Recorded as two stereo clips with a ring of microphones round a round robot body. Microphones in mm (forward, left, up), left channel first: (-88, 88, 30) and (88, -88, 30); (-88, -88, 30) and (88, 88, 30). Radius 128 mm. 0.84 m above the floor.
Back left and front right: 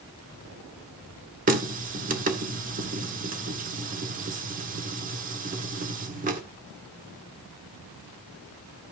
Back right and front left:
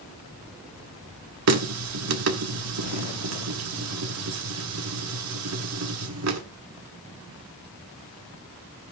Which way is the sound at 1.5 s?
15° left.